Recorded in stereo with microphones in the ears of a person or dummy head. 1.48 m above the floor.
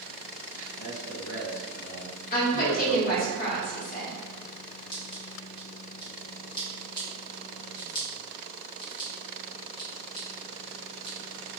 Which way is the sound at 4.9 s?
20° left (ahead or behind).